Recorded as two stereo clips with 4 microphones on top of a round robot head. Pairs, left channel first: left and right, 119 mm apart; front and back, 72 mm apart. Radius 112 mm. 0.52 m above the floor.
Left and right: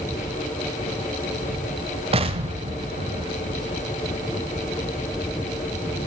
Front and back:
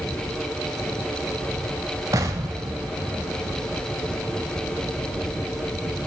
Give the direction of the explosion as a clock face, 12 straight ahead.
4 o'clock.